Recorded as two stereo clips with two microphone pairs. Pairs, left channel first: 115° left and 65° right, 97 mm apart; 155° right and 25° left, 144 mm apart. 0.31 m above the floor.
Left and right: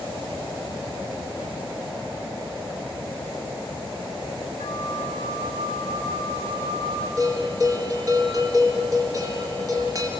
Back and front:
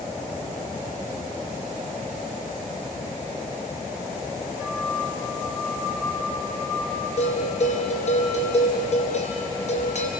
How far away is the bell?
About 4 m.